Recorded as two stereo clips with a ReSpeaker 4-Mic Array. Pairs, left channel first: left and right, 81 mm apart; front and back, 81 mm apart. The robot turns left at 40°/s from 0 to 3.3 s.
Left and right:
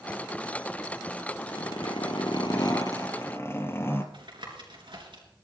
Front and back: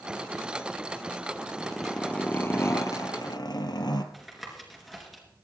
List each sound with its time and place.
1.5 s a zipper: 100° left, 1.2 m; by 4.0 s 30° left, 1.2 m
4.1 s tapping: 90° right, 3 m